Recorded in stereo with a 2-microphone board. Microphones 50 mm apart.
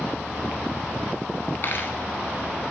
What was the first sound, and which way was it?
A dropped coin, 50° left (ahead or behind).